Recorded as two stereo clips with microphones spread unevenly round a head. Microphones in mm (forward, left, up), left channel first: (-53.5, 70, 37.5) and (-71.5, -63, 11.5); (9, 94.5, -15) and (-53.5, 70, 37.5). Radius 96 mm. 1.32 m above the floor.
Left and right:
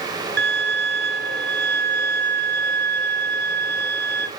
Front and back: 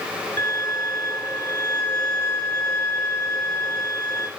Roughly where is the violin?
Right.